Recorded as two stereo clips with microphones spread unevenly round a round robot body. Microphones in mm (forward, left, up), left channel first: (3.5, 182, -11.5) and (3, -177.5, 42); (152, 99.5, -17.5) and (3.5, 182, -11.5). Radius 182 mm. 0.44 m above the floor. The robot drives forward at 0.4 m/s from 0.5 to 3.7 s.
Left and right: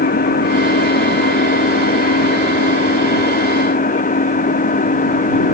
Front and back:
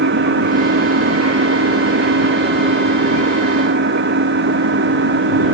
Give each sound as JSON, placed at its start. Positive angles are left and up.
{"t": 0.0, "sound": "an engine running", "azimuth_deg": 160}